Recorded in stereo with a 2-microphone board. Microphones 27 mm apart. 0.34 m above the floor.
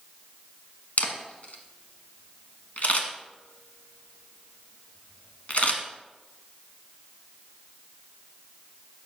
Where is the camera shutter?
60° left (ahead or behind), 1.2 m.